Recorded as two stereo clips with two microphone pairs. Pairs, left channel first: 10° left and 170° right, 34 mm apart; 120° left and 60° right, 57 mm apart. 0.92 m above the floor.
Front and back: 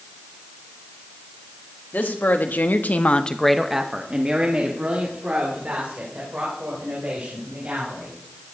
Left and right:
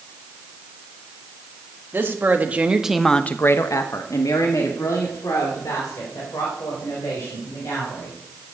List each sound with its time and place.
1.9 s a woman speaking: 10° right, 1.7 m; by 8.2 s 150° left, 6 m